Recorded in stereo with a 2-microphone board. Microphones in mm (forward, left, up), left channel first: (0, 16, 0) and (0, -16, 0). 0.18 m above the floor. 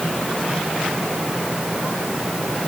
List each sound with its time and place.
Only background noise.